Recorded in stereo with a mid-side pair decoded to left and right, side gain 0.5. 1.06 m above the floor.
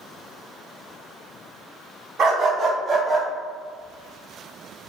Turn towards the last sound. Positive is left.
turn(degrees=-15)